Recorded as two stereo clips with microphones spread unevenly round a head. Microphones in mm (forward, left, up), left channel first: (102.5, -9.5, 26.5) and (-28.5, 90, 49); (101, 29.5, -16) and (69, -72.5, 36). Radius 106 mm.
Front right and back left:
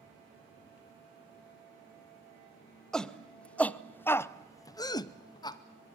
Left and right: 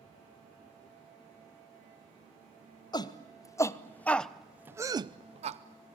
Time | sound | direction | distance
2.9 | a shout | 45° left | 1.4 m